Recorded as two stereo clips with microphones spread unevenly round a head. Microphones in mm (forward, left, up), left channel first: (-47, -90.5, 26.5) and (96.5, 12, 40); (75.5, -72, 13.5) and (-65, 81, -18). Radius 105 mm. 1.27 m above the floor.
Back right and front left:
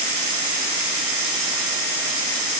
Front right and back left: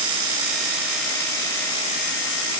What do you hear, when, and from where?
Only background noise.